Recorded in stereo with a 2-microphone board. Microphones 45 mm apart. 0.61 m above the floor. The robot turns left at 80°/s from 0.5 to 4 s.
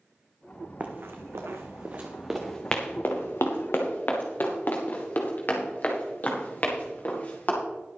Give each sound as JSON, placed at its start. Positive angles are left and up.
{"t": 0.8, "sound": "running footsteps", "side_deg": -30, "distance_m": 1.7}